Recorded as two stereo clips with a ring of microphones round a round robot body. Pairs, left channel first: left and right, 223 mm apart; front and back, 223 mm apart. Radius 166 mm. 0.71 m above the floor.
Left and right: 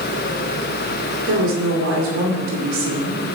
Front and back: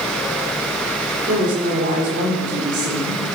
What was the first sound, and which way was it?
A woman speaking, 120° right.